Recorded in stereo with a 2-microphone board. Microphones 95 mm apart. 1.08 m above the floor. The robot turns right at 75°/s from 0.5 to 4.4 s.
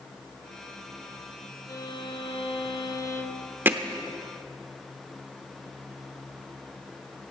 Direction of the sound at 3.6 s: 20° right (ahead or behind).